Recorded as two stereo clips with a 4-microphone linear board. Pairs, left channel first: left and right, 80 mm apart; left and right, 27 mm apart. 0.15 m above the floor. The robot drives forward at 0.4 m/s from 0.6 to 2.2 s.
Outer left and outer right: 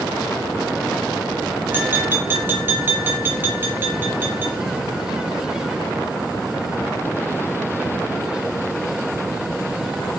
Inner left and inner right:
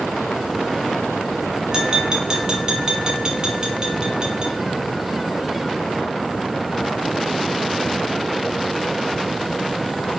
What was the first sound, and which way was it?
Tapping, 25° right (ahead or behind).